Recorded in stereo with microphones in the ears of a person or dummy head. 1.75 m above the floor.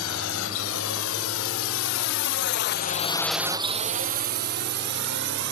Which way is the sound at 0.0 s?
80° left.